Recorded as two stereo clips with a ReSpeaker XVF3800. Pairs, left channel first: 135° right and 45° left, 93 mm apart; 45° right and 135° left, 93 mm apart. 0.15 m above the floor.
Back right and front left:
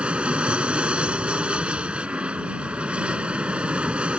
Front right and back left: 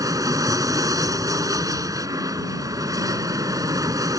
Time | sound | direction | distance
0.0 | an aircraft | 115° left | ?